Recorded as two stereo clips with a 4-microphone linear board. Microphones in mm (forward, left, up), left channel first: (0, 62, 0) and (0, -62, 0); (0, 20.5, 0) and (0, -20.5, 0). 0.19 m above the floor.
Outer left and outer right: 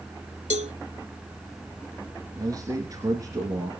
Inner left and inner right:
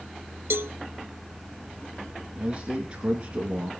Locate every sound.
0.5 s a cowbell: 65° right (ahead or behind), 0.6 m
2.4 s a man speaking: 30° right (ahead or behind), 2.5 m